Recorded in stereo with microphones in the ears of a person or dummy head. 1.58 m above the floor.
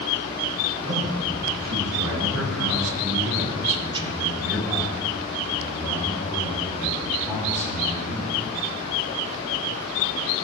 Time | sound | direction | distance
0.8 | a man speaking | 50° right (ahead or behind) | 2.5 m